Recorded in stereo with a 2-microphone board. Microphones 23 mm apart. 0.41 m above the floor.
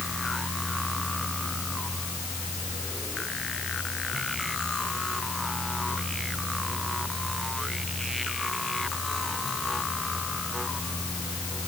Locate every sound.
Only background noise.